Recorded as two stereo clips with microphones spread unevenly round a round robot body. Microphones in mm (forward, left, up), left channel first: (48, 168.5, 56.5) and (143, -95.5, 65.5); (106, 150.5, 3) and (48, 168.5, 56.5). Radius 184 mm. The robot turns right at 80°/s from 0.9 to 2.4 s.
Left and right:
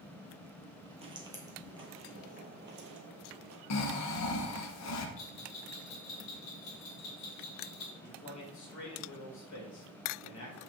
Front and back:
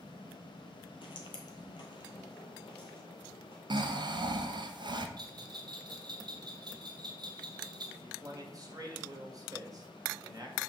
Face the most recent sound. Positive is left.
turn(degrees=110)